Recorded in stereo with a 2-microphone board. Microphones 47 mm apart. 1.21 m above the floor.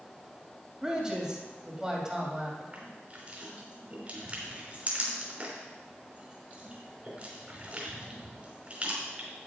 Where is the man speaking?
15° right (ahead or behind), 2.5 m.